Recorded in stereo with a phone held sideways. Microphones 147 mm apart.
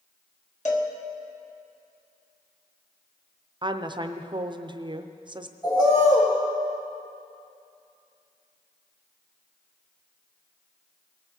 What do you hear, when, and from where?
0.7 s a cowbell: 60° left (ahead or behind), 1.3 m
3.6 s a woman speaking: 35° right (ahead or behind), 0.5 m
5.6 s a bird: 30° left (ahead or behind), 3.5 m